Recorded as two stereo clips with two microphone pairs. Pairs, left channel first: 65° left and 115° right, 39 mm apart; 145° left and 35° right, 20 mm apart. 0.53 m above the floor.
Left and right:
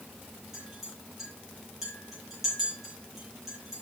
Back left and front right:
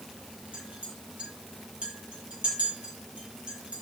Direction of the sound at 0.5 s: 35° right.